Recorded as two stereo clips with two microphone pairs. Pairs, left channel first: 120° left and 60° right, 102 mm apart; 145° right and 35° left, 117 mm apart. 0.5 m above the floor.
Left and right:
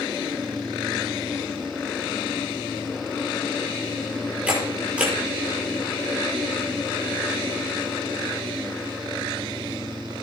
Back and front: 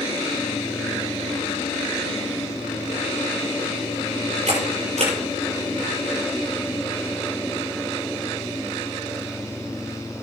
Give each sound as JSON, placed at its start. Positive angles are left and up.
{"t": 4.5, "sound": "a camera shutter", "azimuth_deg": 15, "distance_m": 6.5}